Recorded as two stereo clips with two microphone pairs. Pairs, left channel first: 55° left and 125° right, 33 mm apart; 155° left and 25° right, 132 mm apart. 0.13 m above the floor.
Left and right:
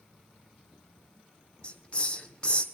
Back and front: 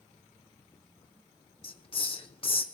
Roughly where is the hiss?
Behind left.